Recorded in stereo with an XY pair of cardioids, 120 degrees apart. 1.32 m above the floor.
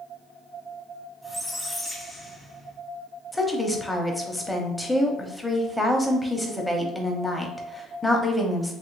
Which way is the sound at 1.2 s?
15° left.